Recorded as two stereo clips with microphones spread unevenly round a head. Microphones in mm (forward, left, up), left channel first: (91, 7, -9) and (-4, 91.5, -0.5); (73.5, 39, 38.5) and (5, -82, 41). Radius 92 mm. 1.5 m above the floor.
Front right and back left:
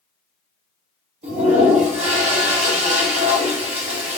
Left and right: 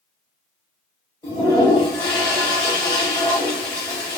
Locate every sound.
1.2 s a toilet flushing: 135° left, 0.9 m